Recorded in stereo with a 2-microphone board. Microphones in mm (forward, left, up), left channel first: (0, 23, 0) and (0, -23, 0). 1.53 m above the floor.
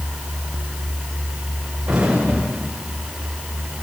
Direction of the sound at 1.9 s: 15° right (ahead or behind).